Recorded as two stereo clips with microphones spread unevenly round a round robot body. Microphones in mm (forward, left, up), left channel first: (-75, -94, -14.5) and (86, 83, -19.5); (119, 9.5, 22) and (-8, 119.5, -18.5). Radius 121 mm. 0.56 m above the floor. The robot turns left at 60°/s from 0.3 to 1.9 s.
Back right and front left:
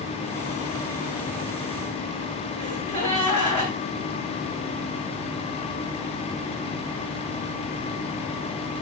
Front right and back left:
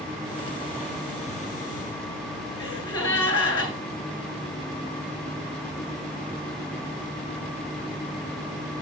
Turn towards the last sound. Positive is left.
turn(degrees=20)